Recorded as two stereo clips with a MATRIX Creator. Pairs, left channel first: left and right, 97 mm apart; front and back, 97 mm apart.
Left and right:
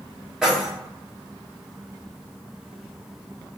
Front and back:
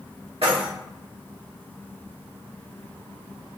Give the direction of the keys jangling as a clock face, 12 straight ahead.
6 o'clock.